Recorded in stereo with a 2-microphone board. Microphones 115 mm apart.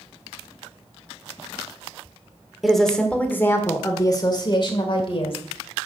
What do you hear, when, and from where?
2.6 s a woman speaking: centre (ahead or behind), 1.5 m; by 5.4 s 55° left (ahead or behind), 2 m